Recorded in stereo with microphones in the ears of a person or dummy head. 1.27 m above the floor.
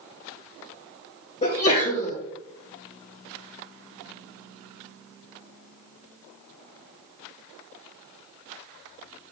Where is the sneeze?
35° left (ahead or behind), 0.8 m.